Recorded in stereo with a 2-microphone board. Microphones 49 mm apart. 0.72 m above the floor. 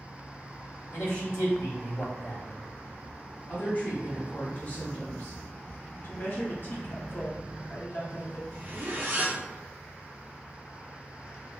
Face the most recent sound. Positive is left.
turn(degrees=-40)  # may be behind; listen again after turning